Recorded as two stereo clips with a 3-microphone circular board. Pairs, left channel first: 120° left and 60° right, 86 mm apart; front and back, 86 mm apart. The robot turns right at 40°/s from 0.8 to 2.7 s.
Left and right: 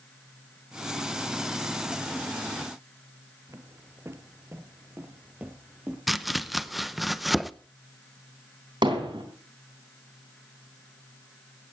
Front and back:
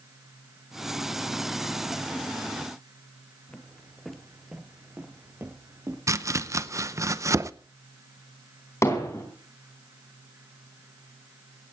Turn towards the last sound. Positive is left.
turn(degrees=-50)